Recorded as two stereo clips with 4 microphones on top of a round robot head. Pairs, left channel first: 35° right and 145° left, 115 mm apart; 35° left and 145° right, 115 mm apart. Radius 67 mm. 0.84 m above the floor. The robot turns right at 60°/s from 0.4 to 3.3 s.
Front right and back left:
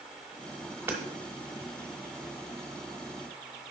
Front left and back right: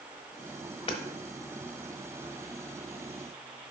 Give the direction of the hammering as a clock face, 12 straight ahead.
9 o'clock.